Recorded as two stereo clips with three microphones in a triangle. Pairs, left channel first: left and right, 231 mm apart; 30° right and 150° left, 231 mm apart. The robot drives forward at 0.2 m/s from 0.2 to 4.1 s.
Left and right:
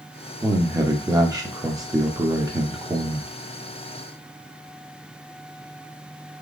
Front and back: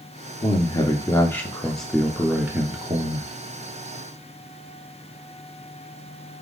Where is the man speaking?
40° right, 0.7 m; by 3.3 s 155° right, 0.8 m.